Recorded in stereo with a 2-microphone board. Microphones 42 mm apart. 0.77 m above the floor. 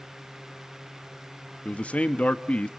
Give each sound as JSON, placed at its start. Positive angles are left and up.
{"t": 1.6, "sound": "a man speaking", "side_deg": 30, "distance_m": 0.9}